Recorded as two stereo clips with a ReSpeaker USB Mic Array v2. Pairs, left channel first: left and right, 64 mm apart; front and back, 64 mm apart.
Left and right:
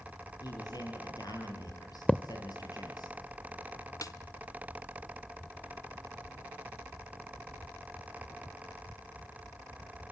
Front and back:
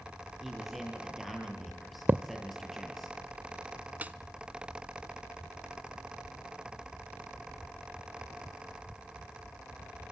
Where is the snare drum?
115° left, 0.7 m.